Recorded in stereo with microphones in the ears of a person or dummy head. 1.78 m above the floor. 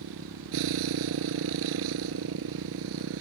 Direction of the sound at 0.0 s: 70° right (ahead or behind).